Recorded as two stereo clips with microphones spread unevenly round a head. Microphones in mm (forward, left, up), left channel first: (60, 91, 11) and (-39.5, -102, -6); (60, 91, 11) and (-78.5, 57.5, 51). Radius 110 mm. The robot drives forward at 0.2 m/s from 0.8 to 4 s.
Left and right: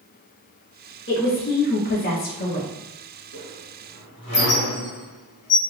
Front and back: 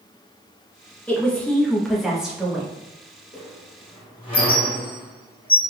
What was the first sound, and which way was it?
A woman speaking, 100° left.